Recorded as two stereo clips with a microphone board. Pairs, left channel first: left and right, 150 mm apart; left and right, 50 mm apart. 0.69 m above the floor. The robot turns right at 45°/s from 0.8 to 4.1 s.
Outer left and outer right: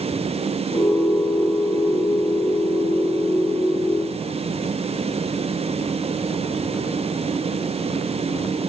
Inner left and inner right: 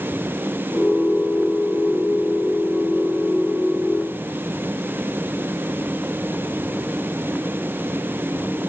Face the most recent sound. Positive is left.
No sound to turn to.